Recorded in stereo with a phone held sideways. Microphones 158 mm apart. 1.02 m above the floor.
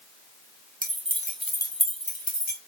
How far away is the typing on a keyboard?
I don't hear typing on a keyboard.